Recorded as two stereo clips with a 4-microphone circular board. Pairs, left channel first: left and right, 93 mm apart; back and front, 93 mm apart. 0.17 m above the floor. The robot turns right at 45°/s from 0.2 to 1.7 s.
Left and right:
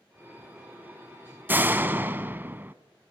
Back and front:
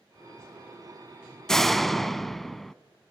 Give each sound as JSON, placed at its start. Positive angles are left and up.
{"t": 1.5, "sound": "a door slam", "azimuth_deg": -105, "distance_m": 0.7}